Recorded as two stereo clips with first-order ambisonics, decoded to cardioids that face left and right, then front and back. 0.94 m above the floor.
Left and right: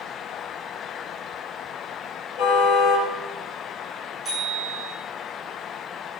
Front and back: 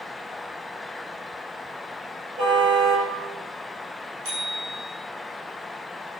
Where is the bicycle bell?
175° right, 8 m.